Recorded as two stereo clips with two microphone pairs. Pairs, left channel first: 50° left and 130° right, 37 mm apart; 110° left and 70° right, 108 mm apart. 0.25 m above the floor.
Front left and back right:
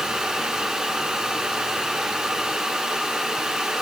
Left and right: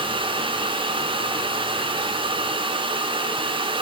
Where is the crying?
No crying in this recording.